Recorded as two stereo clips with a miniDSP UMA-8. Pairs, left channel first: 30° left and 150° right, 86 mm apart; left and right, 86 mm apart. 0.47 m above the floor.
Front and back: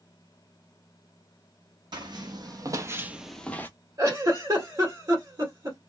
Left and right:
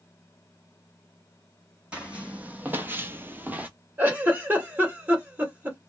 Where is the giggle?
150° right, 1.7 m.